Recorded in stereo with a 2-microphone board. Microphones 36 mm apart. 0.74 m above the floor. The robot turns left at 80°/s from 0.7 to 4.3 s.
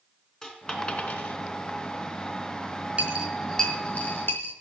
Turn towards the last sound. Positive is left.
turn(degrees=70)  # may be behind; listen again after turning